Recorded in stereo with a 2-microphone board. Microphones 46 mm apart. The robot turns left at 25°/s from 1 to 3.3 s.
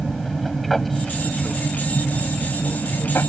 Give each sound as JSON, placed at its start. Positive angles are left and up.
{"t": 0.0, "sound": "an aircraft", "azimuth_deg": 180}